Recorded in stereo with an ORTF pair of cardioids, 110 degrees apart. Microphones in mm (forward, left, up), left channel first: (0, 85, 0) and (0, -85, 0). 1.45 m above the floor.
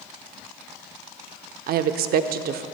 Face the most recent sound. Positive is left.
turn(degrees=-65)